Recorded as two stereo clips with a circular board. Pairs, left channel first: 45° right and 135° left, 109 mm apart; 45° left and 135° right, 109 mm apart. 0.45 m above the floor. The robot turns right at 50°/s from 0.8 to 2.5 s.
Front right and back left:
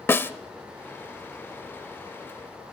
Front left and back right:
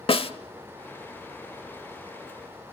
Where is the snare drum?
20° left, 0.9 m.